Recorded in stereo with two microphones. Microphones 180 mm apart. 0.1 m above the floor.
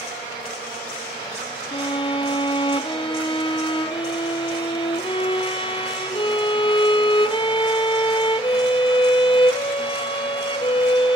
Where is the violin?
30° left (ahead or behind), 0.8 m.